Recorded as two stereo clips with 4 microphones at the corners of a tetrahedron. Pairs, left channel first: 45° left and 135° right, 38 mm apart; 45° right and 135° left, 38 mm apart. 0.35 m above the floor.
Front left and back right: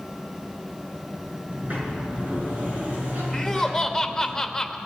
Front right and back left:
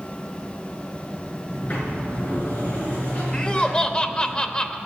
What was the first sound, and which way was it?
A sliding door, 90° right.